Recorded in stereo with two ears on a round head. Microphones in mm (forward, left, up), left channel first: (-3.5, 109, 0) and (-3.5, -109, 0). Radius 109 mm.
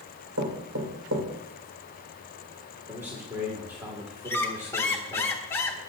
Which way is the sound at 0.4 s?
70° right (ahead or behind).